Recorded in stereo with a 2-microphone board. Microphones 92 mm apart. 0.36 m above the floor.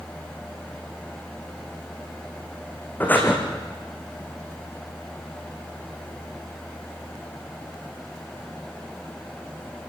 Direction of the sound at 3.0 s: 20° left (ahead or behind).